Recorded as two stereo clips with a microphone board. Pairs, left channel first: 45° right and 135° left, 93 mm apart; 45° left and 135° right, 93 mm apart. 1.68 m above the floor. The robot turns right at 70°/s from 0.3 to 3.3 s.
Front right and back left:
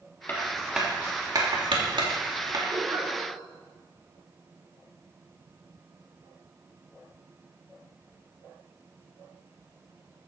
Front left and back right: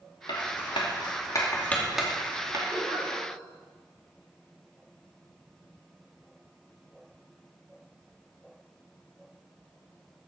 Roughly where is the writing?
Ahead.